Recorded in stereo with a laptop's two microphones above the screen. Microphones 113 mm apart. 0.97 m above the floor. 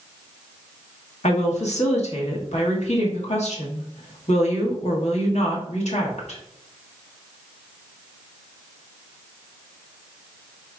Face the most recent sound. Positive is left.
turn(degrees=75)  # may be behind; listen again after turning